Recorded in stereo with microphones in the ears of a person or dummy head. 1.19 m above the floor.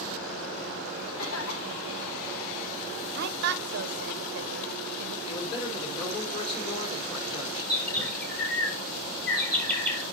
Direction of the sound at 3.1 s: 55° right (ahead or behind).